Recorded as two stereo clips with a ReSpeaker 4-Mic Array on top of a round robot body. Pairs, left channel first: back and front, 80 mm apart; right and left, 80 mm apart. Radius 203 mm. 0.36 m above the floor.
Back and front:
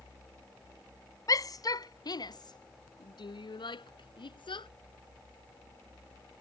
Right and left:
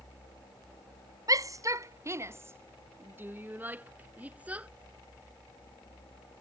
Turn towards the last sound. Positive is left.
turn(degrees=165)